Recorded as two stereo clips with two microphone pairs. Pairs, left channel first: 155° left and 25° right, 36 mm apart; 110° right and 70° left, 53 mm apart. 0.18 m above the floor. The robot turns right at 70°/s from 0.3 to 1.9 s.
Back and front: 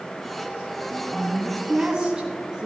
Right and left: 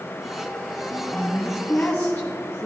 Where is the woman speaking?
140° right, 1.9 m; by 2.7 s 75° right, 1.9 m.